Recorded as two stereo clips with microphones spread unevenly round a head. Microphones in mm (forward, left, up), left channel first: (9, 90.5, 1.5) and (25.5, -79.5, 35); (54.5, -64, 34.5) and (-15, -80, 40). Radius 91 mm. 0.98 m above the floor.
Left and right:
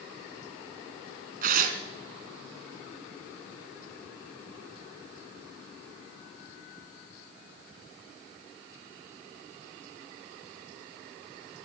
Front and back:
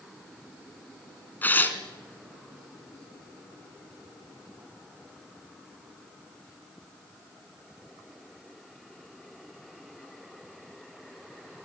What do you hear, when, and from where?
1.4 s tearing paper: 55° right, 2.5 m